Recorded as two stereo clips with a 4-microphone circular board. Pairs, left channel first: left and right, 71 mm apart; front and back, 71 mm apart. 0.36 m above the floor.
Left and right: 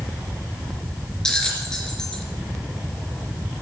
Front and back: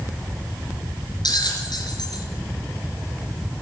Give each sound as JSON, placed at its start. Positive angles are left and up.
{"t": 1.2, "sound": "a bell", "azimuth_deg": 10, "distance_m": 3.0}